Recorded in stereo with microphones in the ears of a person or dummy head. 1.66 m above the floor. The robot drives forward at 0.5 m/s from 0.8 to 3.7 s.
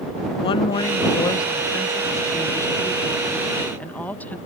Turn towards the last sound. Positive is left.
turn(degrees=10)  # may be behind; listen again after turning